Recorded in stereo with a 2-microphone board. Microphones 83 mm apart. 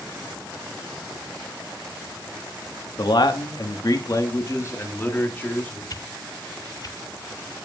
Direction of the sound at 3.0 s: 60° left (ahead or behind).